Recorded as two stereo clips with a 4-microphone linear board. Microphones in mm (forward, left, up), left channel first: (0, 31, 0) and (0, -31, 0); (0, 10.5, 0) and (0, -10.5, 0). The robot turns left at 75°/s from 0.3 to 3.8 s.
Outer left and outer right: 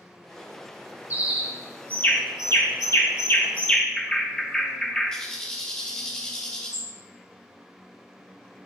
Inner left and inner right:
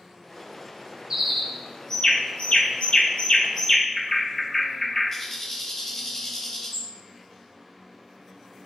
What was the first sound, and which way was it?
A bird, 30° right (ahead or behind).